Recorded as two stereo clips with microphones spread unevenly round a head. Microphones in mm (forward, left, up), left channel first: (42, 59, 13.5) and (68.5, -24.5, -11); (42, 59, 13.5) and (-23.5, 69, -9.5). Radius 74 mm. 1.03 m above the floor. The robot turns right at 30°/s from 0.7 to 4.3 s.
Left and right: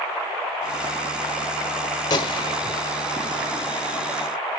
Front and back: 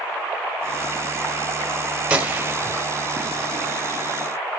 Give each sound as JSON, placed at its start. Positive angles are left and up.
{"t": 2.1, "sound": "a gunshot", "azimuth_deg": 90, "distance_m": 1.3}